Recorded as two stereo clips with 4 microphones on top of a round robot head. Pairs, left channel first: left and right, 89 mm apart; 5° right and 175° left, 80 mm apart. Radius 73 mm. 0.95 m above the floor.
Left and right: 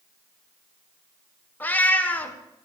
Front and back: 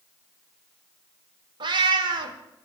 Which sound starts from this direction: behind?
A cat meowing, at 1.6 s.